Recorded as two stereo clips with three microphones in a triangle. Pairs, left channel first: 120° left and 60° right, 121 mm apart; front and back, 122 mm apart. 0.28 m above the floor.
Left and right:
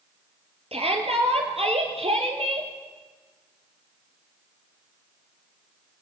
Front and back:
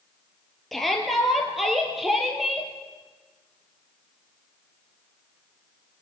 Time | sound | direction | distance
0.7 | a shout | 90° right | 5 m